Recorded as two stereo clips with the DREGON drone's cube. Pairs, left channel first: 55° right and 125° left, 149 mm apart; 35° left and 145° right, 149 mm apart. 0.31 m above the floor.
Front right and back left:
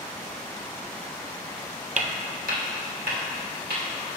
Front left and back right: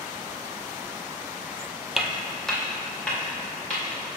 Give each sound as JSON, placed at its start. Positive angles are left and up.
{"t": 2.0, "sound": "footsteps", "azimuth_deg": 130, "distance_m": 0.5}